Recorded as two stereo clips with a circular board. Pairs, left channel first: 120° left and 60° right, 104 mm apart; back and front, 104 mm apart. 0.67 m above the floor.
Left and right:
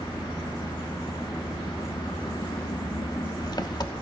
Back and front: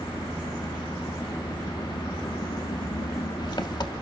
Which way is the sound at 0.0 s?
150° left.